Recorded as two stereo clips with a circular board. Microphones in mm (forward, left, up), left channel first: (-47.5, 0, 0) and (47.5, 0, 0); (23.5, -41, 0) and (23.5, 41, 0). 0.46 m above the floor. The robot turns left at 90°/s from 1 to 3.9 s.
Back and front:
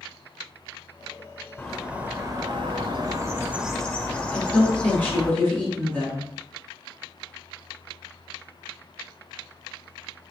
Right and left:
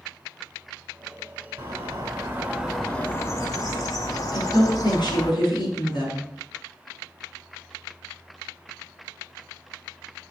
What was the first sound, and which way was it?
A bird, 105° left.